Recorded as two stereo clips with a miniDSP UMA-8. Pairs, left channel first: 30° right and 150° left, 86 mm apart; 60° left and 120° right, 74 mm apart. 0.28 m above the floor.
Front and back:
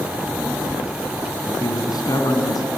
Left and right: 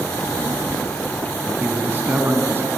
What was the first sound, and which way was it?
A child speaking, 80° right.